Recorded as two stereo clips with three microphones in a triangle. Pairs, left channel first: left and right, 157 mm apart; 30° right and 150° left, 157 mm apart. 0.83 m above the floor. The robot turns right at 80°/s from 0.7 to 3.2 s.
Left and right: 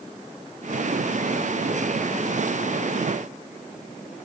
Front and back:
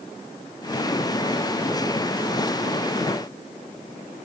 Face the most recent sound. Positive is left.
No sound to turn to.